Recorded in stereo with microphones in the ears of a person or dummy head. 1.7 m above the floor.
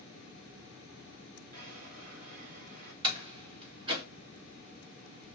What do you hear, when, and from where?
1.5 s a drawer: 45° right (ahead or behind), 2 m
3.0 s a door slam: 30° right (ahead or behind), 2 m